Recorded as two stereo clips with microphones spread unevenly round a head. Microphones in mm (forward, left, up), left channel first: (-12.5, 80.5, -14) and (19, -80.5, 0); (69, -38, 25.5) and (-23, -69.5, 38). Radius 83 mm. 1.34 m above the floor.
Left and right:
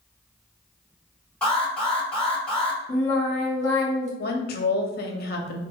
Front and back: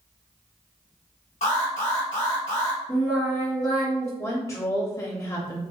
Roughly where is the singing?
Ahead left.